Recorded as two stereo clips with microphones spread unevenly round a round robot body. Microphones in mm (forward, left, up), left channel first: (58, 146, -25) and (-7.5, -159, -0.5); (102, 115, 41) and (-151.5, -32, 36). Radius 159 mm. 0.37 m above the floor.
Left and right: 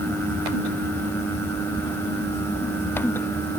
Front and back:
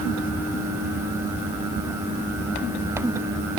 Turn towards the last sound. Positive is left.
No sound to turn to.